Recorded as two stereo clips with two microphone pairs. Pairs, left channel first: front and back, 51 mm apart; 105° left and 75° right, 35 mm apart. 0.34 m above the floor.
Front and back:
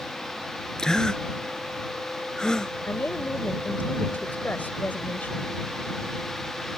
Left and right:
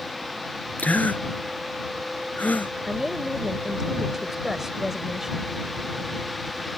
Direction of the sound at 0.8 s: 75° left.